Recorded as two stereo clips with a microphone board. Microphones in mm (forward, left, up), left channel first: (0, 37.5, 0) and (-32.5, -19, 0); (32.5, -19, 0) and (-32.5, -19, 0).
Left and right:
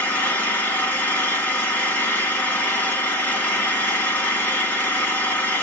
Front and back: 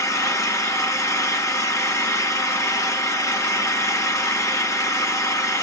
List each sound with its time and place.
0.0 s an engine running: 5° left, 1.7 m